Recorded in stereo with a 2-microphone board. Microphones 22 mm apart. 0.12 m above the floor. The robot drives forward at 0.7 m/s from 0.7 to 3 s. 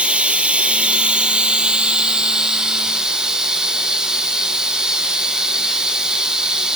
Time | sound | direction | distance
0.0 | running water | 65° right (ahead or behind) | 1.4 m